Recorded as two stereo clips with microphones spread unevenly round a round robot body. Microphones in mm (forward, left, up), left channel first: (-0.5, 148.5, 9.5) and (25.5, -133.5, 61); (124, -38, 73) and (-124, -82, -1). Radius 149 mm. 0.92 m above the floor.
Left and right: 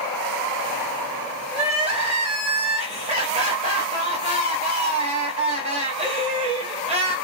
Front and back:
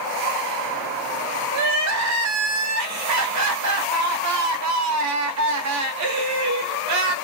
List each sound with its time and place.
1.5 s crying: 150° right, 0.7 m